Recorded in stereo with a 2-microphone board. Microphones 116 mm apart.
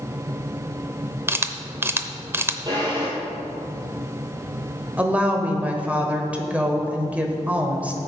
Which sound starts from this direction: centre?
A woman speaking, at 5.0 s.